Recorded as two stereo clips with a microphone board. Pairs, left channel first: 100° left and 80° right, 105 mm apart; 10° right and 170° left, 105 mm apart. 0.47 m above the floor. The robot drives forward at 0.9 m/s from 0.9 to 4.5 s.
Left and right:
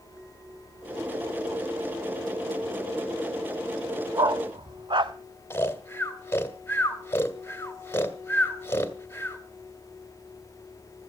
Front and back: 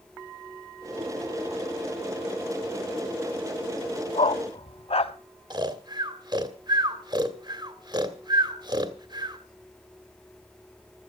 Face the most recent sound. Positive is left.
turn(degrees=155)